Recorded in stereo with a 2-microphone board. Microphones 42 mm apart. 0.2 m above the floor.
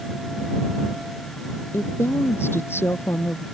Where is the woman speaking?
75° left (ahead or behind).